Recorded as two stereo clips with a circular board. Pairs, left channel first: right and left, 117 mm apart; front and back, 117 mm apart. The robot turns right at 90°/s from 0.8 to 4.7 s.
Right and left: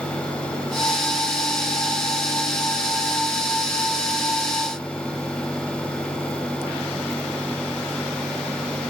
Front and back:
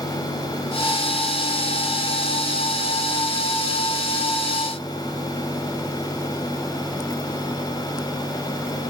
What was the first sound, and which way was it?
Only background noise.